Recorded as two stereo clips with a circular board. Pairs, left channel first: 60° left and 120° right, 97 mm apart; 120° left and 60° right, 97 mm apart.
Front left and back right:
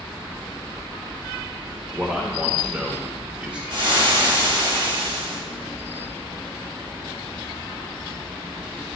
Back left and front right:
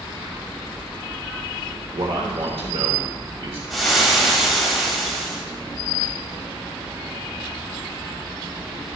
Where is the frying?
150° right, 1.9 m.